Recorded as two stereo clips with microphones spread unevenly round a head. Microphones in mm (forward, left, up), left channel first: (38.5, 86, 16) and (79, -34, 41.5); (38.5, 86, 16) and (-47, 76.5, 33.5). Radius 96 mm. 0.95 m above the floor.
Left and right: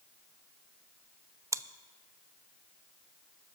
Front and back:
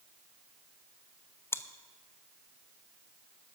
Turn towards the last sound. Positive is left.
turn(degrees=0)